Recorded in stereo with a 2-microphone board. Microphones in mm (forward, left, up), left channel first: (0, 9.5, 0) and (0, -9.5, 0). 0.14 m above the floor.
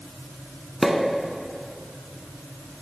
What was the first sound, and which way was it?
A pop, 5° right (ahead or behind).